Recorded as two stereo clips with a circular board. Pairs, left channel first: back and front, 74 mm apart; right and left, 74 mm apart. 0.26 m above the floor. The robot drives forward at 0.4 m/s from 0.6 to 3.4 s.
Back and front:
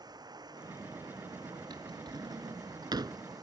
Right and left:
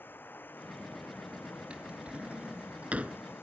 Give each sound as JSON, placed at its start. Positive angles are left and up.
{"t": 0.0, "sound": "running water", "azimuth_deg": -25}
{"t": 1.7, "sound": "a drawer", "azimuth_deg": 15}